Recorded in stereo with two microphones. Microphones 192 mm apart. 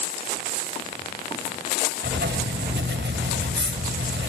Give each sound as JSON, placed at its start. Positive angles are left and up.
{"t": 2.0, "sound": "writing", "side_deg": -80, "distance_m": 2.5}